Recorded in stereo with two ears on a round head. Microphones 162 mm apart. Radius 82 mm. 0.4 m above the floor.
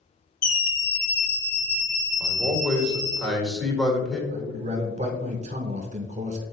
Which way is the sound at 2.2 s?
Centre (ahead or behind).